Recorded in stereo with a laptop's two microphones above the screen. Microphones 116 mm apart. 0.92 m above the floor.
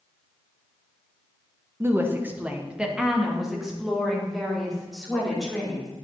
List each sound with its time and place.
1.8 s a woman speaking: 20° right (ahead or behind), 0.8 m; by 5.9 s 5° left (ahead or behind), 3.5 m